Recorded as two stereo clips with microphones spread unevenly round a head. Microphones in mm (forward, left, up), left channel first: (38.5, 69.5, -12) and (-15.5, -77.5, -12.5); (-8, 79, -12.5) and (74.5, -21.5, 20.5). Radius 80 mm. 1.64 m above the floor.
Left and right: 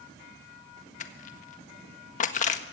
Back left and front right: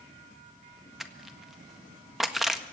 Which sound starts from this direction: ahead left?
Crushing, at 1.0 s.